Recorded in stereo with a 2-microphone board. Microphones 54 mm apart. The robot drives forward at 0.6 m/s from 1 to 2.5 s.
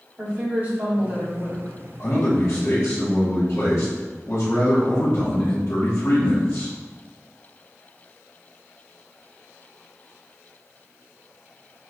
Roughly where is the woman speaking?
Right.